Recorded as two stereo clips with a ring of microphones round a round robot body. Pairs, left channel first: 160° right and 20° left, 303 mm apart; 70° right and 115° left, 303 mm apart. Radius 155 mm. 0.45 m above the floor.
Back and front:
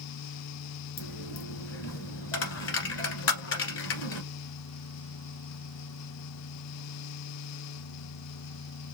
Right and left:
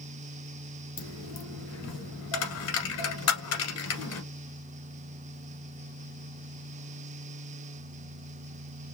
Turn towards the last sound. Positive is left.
turn(degrees=-110)